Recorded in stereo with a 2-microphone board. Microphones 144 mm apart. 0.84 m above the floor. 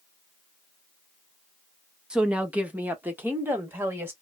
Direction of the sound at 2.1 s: 5° right (ahead or behind).